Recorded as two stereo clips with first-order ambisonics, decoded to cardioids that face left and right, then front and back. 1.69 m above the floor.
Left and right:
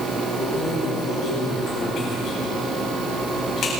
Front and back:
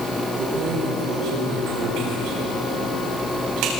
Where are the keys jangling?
150° left, 9.5 m.